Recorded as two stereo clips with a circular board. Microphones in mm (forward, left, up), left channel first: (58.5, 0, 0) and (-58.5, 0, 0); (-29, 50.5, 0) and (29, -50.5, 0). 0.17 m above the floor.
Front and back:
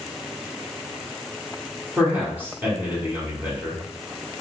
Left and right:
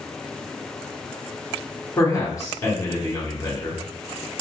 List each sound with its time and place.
2.0 s a man speaking: 125° left, 1.3 m